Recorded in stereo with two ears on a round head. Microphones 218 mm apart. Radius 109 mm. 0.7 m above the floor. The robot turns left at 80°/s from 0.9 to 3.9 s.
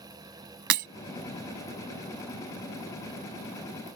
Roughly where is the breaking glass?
Right.